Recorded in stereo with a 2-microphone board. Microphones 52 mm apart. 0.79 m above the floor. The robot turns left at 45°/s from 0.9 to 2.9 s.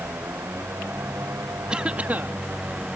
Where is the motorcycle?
70° right (ahead or behind); by 3.0 s 25° right (ahead or behind).